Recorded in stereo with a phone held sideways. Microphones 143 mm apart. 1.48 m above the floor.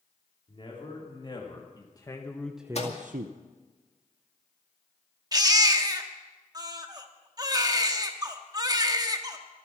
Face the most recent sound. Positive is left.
turn(degrees=-25)  # may be behind; listen again after turning